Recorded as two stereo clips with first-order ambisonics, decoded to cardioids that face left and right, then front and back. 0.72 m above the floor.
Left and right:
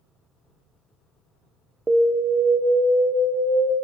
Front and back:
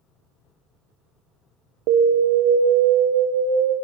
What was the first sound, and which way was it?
An alarm, 165° right.